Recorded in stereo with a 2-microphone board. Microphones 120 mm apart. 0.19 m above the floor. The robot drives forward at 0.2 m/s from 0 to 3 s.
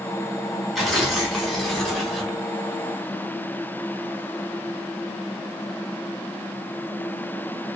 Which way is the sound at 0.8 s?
Centre (ahead or behind).